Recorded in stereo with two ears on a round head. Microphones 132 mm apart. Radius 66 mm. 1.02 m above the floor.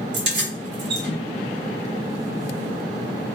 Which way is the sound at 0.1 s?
90° right.